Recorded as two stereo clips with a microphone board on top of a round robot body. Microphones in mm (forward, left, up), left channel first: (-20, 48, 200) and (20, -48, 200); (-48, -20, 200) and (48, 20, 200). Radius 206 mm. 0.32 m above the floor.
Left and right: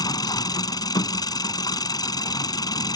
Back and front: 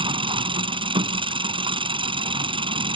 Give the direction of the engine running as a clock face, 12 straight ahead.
10 o'clock.